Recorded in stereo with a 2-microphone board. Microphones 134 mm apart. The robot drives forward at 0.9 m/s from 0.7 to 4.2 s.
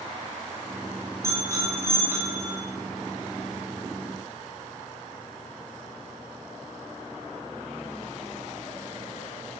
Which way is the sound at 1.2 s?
20° right (ahead or behind).